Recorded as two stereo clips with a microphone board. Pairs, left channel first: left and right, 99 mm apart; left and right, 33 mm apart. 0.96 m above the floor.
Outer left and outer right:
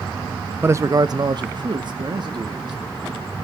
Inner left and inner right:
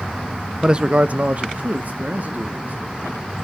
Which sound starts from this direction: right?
A man speaking, at 0.6 s.